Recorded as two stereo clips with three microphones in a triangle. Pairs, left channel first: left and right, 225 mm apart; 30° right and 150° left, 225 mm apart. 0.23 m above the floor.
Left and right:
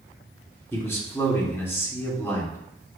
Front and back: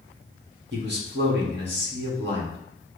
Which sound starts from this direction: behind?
A man speaking, at 0.7 s.